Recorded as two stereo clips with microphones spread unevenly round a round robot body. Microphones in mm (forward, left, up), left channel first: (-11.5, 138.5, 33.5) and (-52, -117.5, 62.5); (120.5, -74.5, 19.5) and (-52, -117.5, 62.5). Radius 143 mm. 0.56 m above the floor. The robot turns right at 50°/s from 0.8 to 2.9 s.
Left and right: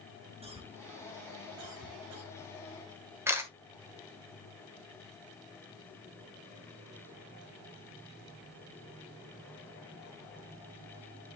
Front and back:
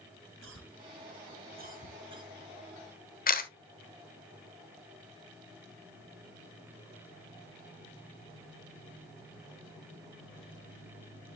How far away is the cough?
About 3.5 m.